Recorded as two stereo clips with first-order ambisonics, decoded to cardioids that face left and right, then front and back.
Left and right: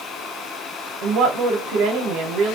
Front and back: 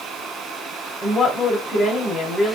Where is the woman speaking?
80° right, 1.5 m.